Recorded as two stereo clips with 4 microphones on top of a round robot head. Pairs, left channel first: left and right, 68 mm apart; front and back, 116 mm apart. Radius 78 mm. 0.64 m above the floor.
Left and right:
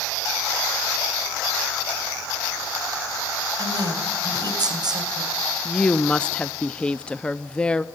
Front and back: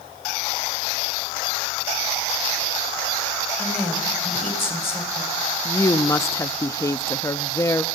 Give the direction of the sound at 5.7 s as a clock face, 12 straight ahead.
11 o'clock.